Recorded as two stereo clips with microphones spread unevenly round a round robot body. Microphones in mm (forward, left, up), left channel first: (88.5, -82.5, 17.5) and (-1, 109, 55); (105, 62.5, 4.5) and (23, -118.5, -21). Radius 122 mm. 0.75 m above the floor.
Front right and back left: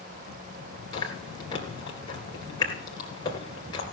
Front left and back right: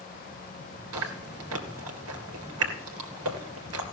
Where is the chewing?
140° right, 2 m.